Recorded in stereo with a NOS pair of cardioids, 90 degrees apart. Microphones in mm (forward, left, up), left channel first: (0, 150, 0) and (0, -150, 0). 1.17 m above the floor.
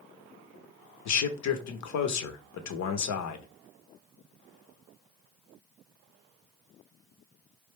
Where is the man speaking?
65° left, 1.1 m.